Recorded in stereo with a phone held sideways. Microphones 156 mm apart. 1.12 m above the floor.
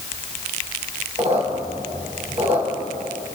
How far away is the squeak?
About 2.5 m.